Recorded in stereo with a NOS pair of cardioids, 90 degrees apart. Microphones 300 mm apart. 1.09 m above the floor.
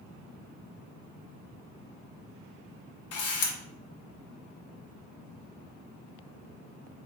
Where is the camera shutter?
55° left, 0.9 m.